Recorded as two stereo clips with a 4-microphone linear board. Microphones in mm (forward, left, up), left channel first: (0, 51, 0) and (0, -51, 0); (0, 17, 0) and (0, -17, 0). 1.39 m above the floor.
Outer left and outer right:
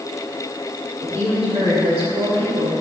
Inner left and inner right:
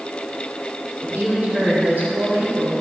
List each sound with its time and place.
1.0 s a woman speaking: 80° right, 4 m